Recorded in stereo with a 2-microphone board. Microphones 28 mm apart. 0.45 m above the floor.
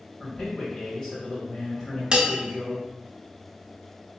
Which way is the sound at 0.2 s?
20° left (ahead or behind).